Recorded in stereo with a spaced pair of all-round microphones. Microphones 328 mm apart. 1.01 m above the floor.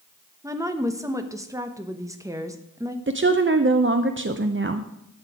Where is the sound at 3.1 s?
40° right (ahead or behind), 0.6 m.